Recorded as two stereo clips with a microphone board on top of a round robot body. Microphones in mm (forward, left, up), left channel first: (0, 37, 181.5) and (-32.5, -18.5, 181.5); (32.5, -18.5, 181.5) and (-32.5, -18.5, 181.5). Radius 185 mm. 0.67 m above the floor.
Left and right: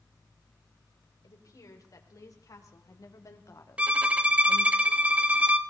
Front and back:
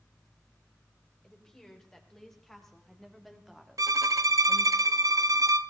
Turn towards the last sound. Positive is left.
turn(degrees=170)